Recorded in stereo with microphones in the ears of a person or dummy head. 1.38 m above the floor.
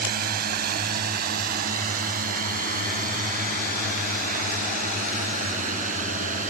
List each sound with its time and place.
0.0 s a drone: 55° right (ahead or behind); by 6.5 s 45° right (ahead or behind)